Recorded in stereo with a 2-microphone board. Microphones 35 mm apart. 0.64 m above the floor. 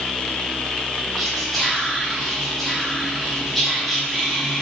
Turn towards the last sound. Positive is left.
turn(degrees=0)  # may be behind; listen again after turning